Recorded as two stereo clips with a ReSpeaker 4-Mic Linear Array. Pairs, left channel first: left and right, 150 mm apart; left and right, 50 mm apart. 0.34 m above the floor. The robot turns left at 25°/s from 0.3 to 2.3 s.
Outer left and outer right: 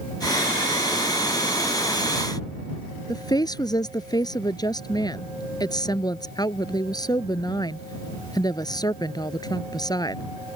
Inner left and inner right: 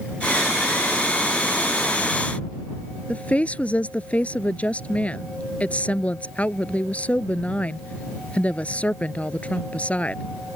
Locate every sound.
3.1 s a woman speaking: 25° left (ahead or behind)